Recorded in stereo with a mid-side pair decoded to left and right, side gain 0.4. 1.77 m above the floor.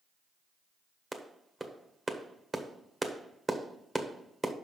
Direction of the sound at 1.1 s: 25° right.